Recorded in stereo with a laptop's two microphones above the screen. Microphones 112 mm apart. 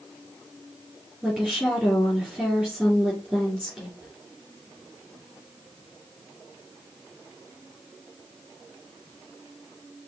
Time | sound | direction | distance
1.2 | a woman speaking | centre (ahead or behind) | 2.5 m